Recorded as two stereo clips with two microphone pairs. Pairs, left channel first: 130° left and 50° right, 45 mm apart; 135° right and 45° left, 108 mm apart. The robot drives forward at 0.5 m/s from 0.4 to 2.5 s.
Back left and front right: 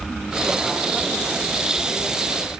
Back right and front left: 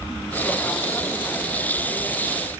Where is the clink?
I don't hear a clink.